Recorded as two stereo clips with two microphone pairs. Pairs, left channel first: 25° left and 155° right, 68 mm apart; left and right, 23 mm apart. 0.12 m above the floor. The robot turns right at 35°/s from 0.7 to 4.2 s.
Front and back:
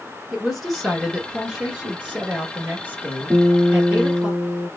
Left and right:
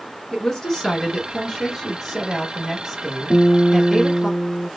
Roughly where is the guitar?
Behind.